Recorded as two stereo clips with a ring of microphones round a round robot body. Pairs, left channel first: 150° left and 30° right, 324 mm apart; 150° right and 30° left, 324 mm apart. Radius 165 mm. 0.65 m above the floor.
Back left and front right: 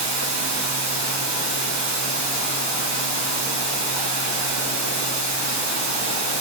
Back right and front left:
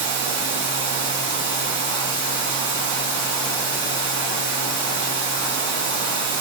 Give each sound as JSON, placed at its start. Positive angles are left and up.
{"t": 0.0, "sound": "running water", "azimuth_deg": -25, "distance_m": 5.0}